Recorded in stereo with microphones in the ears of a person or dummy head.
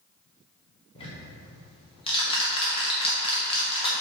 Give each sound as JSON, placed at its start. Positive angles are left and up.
{"t": 0.9, "sound": "ticking", "side_deg": 30, "distance_m": 1.3}